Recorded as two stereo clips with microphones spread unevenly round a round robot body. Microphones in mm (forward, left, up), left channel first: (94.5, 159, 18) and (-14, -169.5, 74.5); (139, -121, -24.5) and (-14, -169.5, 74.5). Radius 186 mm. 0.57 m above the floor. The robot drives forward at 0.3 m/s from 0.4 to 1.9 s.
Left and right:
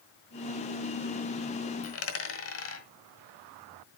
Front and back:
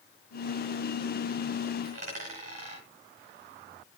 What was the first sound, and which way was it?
A dropped coin, 125° left.